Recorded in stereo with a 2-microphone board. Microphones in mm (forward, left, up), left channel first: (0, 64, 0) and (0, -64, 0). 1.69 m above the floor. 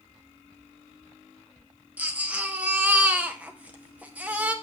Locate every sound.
2.0 s a baby crying: 10° right (ahead or behind), 0.8 m